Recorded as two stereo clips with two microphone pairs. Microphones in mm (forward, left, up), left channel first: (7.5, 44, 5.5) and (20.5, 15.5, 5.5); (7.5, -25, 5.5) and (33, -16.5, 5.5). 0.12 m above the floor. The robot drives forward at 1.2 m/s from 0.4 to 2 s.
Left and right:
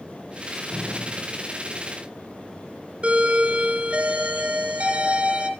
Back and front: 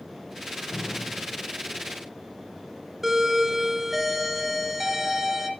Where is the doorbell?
60° right, 2 m.